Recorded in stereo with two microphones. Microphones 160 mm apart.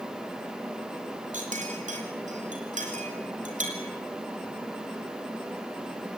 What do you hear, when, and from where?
1.3 s a clink: 50° right (ahead or behind), 4 m